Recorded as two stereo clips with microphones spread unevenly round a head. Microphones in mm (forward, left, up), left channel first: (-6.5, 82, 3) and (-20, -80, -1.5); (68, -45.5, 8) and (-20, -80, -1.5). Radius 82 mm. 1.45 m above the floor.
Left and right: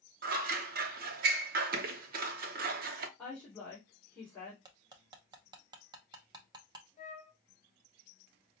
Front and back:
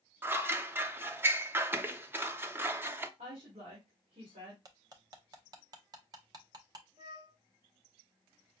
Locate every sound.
0.2 s scissors: 90° right, 0.6 m
3.2 s a woman speaking: 165° left, 1.9 m
4.7 s cutlery clinking: 145° right, 0.7 m
7.0 s a flute: 135° left, 0.6 m